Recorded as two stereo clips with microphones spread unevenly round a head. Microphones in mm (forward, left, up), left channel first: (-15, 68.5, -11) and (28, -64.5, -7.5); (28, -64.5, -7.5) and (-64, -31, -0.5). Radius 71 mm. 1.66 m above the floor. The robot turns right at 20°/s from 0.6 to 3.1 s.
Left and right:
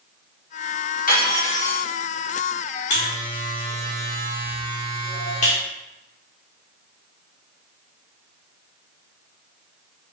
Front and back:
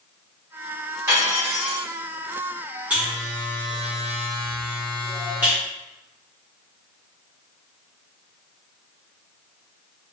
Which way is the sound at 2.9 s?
85° left.